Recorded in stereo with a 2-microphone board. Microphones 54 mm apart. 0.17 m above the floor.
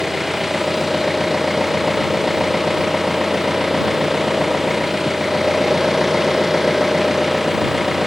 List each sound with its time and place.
0.0 s an engine running: 5° right (ahead or behind)